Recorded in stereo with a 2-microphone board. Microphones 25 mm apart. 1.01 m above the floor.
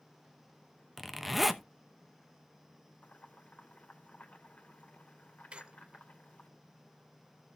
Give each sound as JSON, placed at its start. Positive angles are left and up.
{"t": 1.0, "sound": "a zipper", "side_deg": -5, "distance_m": 0.9}
{"t": 3.0, "sound": "boiling", "side_deg": 80, "distance_m": 2.5}
{"t": 5.5, "sound": "a squeak", "side_deg": -45, "distance_m": 1.0}